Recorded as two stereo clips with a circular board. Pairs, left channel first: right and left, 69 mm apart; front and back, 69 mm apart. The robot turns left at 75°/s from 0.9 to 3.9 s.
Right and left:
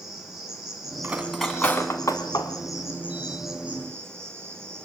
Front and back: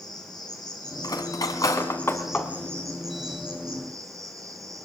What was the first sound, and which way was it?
An insect, 10° left.